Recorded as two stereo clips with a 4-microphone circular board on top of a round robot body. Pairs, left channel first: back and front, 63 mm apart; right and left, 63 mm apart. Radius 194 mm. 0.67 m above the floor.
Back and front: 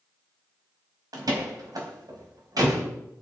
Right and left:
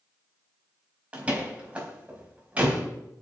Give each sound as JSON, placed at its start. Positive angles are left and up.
{"t": 1.1, "sound": "a door slam", "azimuth_deg": 20, "distance_m": 4.0}